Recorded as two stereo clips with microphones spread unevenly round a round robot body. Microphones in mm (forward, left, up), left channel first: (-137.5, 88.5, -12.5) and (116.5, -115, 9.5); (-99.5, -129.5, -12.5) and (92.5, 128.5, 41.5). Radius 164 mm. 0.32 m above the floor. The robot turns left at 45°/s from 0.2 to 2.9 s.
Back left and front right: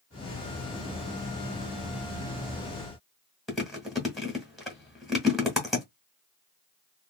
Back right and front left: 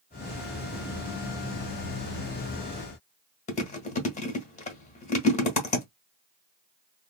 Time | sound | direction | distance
3.5 | chewing | 135° right | 1.2 m